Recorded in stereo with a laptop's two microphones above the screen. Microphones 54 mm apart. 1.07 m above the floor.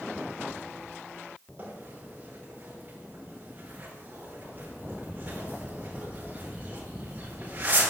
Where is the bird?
30° right (ahead or behind), 4.5 m.